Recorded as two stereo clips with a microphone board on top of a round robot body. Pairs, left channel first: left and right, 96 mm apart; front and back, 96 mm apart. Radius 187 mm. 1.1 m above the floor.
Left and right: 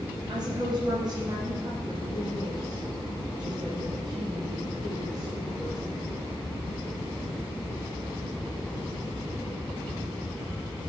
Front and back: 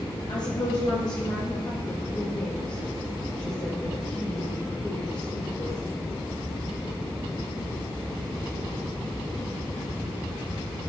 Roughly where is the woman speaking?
Ahead right.